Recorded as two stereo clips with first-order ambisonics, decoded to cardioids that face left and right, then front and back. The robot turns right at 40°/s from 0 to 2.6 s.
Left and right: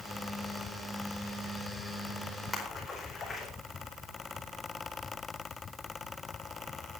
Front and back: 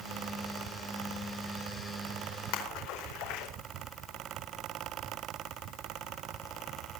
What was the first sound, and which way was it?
A splash, 10° left.